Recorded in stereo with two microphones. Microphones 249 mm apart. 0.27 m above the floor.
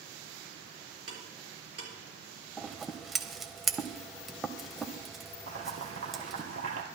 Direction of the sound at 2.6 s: Centre (ahead or behind).